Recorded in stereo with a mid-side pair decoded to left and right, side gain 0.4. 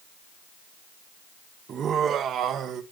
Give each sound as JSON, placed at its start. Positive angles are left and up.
{"t": 1.7, "sound": "laughter", "azimuth_deg": -60, "distance_m": 1.1}